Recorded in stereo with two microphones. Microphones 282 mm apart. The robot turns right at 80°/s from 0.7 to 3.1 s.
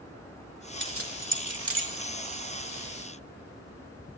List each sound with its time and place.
0.8 s keys jangling: 40° right (ahead or behind), 1.0 m